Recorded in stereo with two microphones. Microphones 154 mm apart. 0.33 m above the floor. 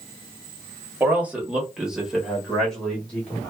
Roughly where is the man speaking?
Centre.